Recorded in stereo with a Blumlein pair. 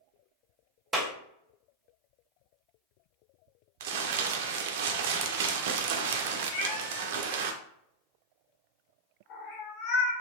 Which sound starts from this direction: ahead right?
Crumpling, at 3.8 s.